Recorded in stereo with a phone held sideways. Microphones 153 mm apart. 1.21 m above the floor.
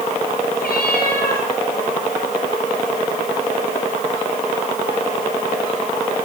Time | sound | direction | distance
0.6 | a cat meowing | 80° left | 10 m